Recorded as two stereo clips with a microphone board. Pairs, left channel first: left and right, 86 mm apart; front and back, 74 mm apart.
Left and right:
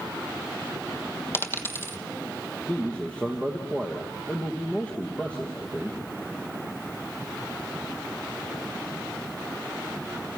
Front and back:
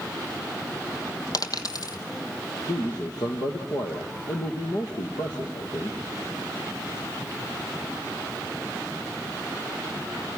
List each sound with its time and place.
1.3 s a dropped coin: 30° left, 1.3 m
2.7 s a man speaking: 15° left, 3 m